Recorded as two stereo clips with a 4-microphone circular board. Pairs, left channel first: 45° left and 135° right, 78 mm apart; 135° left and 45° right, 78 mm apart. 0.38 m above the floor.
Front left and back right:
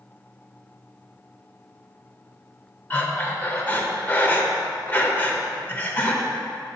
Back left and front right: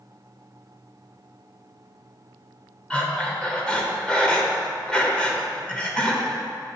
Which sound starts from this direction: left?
Breathing, at 2.9 s.